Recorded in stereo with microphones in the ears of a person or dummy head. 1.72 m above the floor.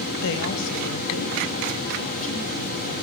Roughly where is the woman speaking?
Left.